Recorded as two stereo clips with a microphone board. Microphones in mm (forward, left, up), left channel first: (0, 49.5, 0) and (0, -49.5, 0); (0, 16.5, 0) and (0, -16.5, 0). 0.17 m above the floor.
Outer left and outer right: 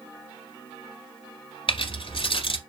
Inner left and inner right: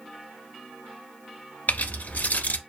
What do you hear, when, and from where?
1.7 s keys jangling: 60° left (ahead or behind), 1.5 m